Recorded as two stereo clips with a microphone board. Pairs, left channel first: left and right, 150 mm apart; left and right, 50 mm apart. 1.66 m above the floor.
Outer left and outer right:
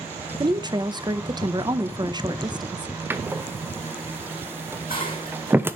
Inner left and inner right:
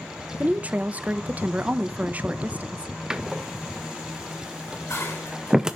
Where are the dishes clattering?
75° left (ahead or behind), 6.5 m.